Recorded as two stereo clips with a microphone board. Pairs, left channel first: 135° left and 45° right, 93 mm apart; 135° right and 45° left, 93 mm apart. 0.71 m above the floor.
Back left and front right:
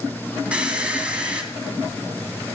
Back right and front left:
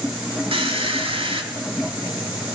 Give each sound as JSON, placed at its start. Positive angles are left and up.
{"t": 0.5, "sound": "a squeak", "azimuth_deg": 35, "distance_m": 2.5}